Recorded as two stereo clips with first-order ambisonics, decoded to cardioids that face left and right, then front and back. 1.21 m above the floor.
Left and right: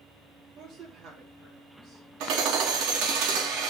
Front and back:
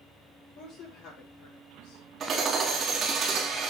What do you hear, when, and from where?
0.6 s a woman speaking: 40° right, 3 m; by 2.0 s 20° right, 3 m
2.2 s hammering: 115° right, 2 m